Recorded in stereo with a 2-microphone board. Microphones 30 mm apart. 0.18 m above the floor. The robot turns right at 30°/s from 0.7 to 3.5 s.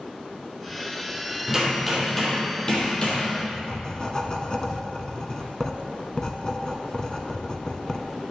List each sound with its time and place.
1.5 s hammering: 10° right, 3 m; by 3.3 s 45° left, 3 m
3.4 s writing: 20° left (ahead or behind), 0.9 m; by 8.1 s 25° left (ahead or behind), 0.9 m